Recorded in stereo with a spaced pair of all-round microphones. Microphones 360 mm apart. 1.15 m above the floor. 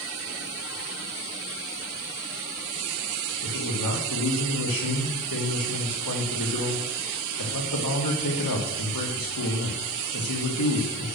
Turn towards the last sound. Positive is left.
turn(degrees=85)